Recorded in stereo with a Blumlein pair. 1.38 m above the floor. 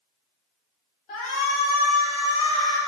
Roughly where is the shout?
Ahead left.